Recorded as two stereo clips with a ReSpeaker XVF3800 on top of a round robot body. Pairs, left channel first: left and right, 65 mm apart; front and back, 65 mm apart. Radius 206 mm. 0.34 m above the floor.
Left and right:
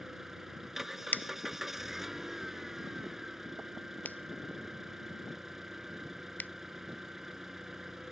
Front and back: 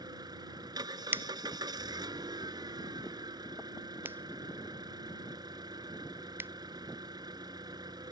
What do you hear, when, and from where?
0.0 s an engine running: 175° right
1.1 s a finger snap: 140° left